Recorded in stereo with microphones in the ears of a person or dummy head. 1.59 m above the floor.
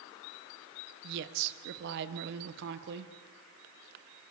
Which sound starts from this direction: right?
A woman speaking, at 1.0 s.